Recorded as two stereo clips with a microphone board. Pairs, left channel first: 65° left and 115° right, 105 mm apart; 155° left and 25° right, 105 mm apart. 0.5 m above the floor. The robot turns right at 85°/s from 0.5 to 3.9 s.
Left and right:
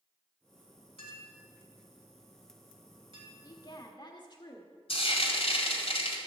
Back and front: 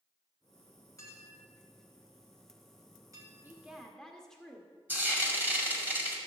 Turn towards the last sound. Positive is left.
turn(degrees=50)